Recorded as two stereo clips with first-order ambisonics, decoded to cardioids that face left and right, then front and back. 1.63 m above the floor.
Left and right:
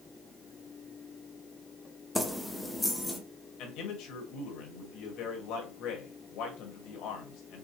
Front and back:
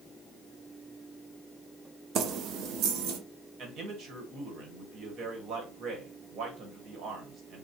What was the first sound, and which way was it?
Keys jangling, 175° left.